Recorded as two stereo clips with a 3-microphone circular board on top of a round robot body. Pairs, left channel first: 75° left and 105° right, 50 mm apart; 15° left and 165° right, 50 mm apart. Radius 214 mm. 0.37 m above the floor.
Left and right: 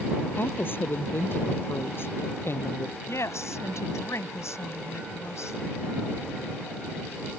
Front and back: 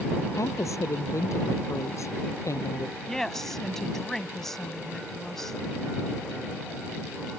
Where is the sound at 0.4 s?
30° left; by 3.0 s 35° left.